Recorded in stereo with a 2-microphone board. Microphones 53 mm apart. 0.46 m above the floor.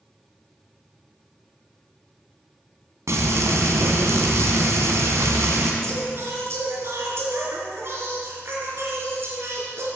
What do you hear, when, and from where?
3.1 s frying: 70° right (ahead or behind), 2 m
5.8 s singing: 55° right (ahead or behind), 3 m